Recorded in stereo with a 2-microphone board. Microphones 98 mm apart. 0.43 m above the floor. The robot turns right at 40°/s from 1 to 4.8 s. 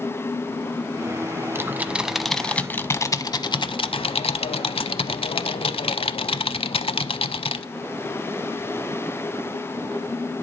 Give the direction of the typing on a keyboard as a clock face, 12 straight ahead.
1 o'clock.